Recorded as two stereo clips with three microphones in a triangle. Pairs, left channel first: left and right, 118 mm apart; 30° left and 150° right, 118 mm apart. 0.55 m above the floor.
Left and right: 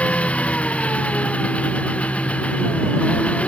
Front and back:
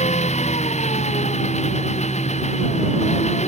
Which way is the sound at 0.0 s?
10° left.